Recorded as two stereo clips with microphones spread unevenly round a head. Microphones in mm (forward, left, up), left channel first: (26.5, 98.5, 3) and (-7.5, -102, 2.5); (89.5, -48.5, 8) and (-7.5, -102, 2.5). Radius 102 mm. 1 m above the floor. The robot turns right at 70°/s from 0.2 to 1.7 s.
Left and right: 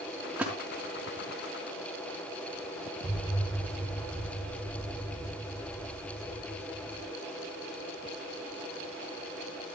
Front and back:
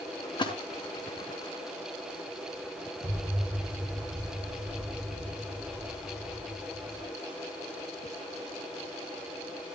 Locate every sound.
0.4 s a splash: 15° right, 4.5 m; by 0.5 s 5° right, 4.5 m
3.0 s an explosion: 165° left, 8 m